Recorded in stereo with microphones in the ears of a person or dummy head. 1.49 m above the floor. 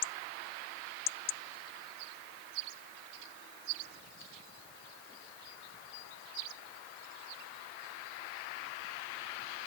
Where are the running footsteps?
No running footsteps in this recording.